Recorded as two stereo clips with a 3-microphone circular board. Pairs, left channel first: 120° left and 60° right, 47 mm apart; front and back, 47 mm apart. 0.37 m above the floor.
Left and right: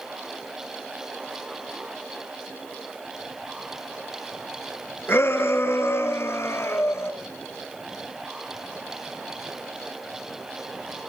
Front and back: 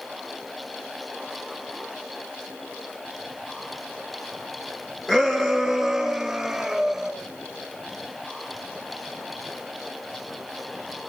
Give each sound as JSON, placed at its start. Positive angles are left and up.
{"t": 5.1, "sound": "a shout", "azimuth_deg": 80, "distance_m": 5.0}